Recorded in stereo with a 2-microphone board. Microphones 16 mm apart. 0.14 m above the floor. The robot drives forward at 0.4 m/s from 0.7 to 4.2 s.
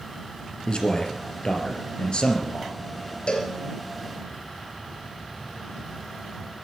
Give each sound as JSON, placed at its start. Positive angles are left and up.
{"t": 0.7, "sound": "a man speaking", "side_deg": 55, "distance_m": 3.0}
{"t": 3.3, "sound": "a cowbell", "side_deg": 60, "distance_m": 3.0}